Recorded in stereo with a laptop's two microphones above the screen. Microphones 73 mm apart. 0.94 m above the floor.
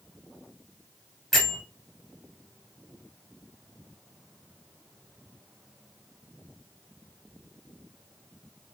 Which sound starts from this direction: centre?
A bell, at 1.3 s.